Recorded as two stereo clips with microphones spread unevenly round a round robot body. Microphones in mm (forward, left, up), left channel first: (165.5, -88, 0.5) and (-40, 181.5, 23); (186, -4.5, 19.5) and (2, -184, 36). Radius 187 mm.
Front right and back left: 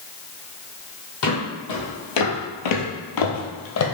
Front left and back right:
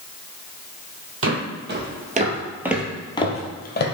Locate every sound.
1.2 s footsteps: 100° right, 1.4 m; by 3.9 s 5° right, 1.2 m